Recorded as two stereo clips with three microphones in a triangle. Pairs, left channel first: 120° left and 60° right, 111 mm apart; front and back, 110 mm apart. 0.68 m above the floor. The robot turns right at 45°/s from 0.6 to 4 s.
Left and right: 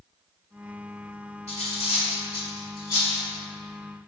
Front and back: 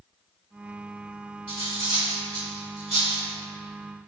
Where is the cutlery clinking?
110° left, 1.9 m; by 3.2 s 170° right, 1.9 m.